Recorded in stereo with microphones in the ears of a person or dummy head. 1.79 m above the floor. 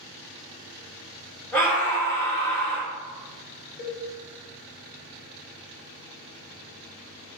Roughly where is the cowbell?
Left.